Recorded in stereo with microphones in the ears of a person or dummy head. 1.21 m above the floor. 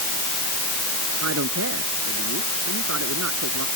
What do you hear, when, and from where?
1.2 s a man speaking: 65° right (ahead or behind); by 3.7 s 70° right (ahead or behind)